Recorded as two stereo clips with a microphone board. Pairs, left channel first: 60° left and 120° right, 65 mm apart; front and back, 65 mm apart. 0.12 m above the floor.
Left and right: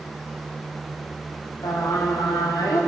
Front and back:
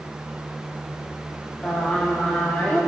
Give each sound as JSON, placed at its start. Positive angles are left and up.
{"t": 1.6, "sound": "singing", "azimuth_deg": 70, "distance_m": 7.0}